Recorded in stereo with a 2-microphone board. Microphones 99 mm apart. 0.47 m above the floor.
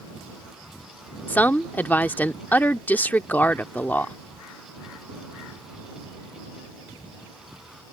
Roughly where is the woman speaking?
Centre.